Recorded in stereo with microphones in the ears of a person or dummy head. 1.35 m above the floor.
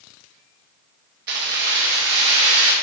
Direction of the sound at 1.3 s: 60° right (ahead or behind).